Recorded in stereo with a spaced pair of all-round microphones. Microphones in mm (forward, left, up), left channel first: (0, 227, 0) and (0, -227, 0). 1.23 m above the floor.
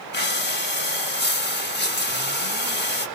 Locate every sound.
0.1 s breathing: 25° left (ahead or behind), 0.9 m